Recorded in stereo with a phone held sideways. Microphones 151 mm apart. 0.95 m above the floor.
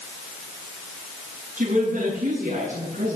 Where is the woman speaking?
85° right, 8 m.